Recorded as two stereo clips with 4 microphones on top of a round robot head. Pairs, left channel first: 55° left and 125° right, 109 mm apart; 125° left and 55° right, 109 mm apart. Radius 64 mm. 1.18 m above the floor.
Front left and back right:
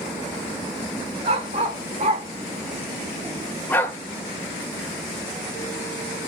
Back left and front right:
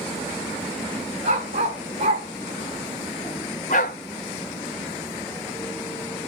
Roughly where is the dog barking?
Right.